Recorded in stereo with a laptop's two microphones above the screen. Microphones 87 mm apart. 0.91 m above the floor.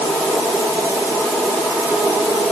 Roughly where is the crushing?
I don't hear crushing.